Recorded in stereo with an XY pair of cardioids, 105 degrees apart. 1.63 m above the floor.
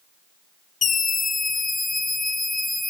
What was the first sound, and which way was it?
A scream, 50° left.